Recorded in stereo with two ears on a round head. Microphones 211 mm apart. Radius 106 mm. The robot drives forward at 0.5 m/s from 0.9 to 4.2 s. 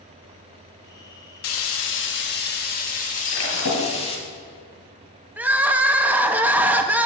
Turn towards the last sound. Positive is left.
turn(degrees=-10)  # may be behind; listen again after turning